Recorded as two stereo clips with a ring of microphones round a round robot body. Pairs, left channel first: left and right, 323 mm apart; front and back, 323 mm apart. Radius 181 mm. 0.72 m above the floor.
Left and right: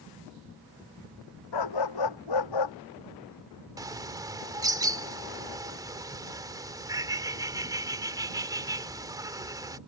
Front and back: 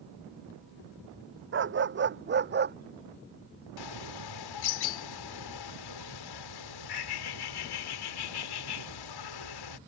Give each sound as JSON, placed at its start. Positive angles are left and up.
{"t": 1.5, "sound": "a dog barking", "azimuth_deg": 125}
{"t": 3.8, "sound": "a bird", "azimuth_deg": -10}